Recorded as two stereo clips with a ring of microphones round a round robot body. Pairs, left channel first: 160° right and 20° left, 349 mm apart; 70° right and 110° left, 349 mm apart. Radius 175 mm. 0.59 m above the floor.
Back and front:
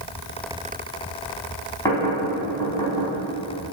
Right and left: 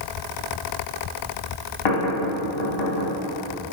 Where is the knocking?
75° right, 4 m.